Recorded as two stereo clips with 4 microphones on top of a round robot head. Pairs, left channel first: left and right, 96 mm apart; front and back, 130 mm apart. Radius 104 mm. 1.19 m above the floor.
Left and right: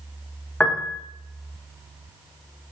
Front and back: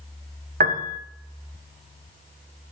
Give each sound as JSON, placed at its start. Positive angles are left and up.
{"t": 0.6, "sound": "a piano", "azimuth_deg": 175, "distance_m": 1.0}